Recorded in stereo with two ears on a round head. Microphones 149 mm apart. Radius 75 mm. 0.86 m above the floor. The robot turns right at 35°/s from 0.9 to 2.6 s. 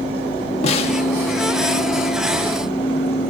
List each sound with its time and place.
0.6 s a snare drum: 40° left (ahead or behind), 1.1 m